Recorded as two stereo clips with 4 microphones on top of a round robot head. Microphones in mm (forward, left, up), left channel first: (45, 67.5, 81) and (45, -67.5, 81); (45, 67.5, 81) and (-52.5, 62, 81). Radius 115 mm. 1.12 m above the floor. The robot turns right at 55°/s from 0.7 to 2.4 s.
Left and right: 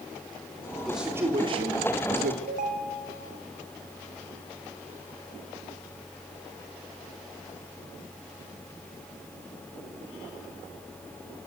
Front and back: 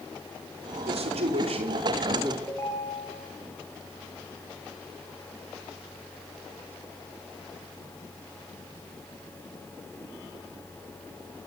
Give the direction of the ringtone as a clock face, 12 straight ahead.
2 o'clock.